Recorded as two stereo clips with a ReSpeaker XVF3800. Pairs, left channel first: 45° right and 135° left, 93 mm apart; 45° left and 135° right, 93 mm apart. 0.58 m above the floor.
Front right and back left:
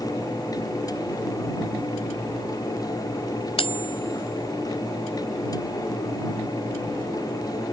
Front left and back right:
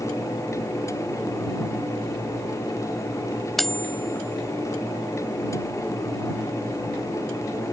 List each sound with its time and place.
3.6 s cutlery clinking: 45° right